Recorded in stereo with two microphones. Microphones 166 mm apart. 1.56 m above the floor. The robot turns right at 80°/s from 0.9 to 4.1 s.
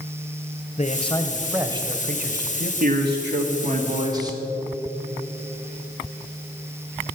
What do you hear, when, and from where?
0.8 s a man speaking: 135° left, 1.0 m; by 2.7 s 80° right, 1.0 m
2.8 s a man speaking: 130° right, 1.9 m; by 4.4 s 25° right, 1.9 m